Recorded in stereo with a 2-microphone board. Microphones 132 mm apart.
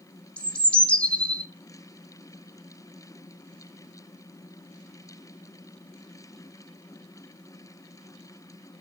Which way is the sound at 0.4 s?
10° left (ahead or behind).